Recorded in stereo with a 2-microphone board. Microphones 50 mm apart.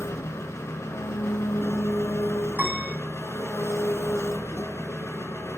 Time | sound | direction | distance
0.0 | an engine running | 75° left (ahead or behind) | 0.7 m
2.5 | a piano | 40° right (ahead or behind) | 1.7 m